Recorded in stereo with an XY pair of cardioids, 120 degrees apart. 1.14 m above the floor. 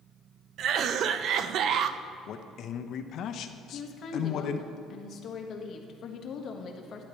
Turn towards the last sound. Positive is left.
turn(degrees=50)